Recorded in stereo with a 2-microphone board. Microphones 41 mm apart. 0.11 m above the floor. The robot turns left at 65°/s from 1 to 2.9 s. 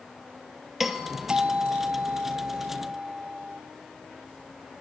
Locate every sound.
0.8 s a doorbell: 10° right, 2.5 m; by 3.6 s 130° right, 2.5 m